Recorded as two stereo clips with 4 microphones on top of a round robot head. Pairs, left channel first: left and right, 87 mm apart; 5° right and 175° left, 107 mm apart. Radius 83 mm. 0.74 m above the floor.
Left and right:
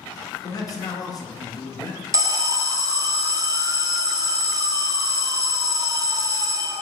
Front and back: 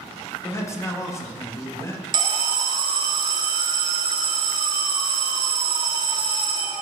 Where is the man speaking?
55° left, 1.2 m.